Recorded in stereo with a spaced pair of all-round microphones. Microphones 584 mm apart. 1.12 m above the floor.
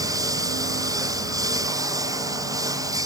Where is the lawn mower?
5° right (ahead or behind).